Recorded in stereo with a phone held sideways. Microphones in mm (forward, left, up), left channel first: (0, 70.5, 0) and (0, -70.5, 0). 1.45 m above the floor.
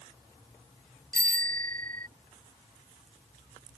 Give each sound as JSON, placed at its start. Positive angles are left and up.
{"t": 1.1, "sound": "a bicycle bell", "side_deg": -80}